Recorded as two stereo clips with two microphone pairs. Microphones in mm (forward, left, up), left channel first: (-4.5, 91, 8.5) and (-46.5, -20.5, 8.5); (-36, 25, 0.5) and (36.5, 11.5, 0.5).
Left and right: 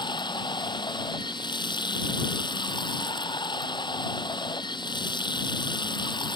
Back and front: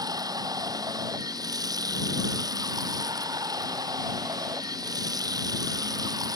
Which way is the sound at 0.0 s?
20° left.